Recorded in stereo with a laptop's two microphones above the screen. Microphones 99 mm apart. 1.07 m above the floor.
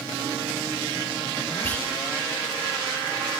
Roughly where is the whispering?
Centre.